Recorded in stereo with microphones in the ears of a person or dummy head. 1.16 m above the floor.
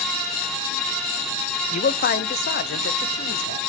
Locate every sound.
1.7 s a man speaking: 35° left (ahead or behind), 0.5 m; by 3.6 s 55° left (ahead or behind), 1.6 m